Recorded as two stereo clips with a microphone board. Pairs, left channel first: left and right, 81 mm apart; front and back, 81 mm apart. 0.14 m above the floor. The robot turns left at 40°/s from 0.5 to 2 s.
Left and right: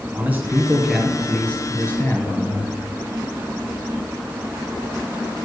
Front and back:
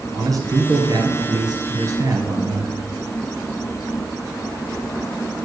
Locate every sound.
0.1 s a man speaking: 155° right, 3 m; by 2.7 s 145° left, 3 m